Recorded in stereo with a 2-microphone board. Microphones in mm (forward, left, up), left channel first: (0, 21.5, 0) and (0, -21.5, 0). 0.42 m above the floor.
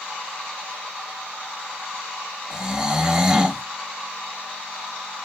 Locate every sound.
2.5 s snoring: 15° right (ahead or behind), 0.6 m